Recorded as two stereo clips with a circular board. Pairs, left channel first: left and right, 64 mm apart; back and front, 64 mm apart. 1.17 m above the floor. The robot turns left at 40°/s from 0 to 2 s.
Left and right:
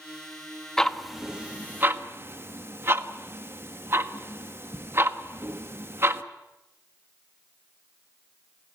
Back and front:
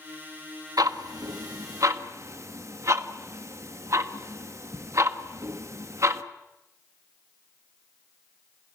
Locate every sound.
0.8 s ticking: 10° left, 1.2 m; by 6.2 s 40° right, 1.2 m